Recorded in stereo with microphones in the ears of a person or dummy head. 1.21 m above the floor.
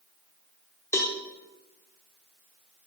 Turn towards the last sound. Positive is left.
turn(degrees=15)  # may be behind; listen again after turning